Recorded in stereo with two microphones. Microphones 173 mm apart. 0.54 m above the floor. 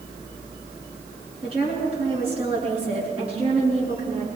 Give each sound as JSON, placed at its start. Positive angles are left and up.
{"t": 1.4, "sound": "a woman speaking", "side_deg": -35, "distance_m": 7.0}